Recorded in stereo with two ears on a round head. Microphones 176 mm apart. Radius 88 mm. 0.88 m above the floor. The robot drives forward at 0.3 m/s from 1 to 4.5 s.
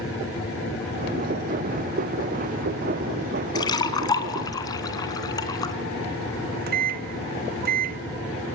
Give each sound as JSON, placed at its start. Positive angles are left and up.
{"t": 3.5, "sound": "a splash", "side_deg": 20, "distance_m": 2.5}
{"t": 6.3, "sound": "a microwave", "side_deg": -50, "distance_m": 1.0}